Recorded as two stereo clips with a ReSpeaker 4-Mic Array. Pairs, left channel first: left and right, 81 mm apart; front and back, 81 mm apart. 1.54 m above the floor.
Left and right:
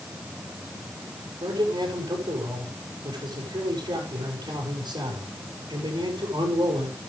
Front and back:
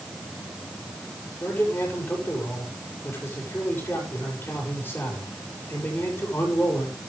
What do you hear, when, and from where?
1.4 s a man speaking: 65° right, 6.5 m